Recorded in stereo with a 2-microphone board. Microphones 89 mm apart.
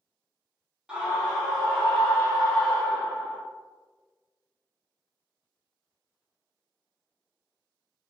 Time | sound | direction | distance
0.9 | a scream | 10° right (ahead or behind) | 1.2 m